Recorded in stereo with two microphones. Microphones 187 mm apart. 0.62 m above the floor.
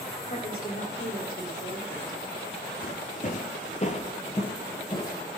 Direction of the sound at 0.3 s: 55° left (ahead or behind).